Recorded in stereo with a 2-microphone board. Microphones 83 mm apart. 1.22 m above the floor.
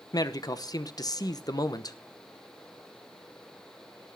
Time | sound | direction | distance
0.1 | a man speaking | 50° left (ahead or behind) | 0.9 m